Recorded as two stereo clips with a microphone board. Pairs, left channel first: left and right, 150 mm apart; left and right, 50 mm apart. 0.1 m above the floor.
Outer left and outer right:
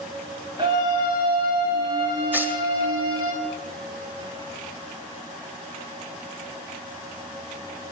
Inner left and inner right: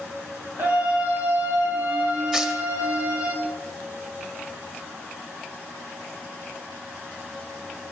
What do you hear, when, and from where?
0.6 s a scream: 30° right (ahead or behind), 7.5 m; by 3.3 s 25° right (ahead or behind), 11 m
2.3 s tearing paper: 10° right (ahead or behind), 1.8 m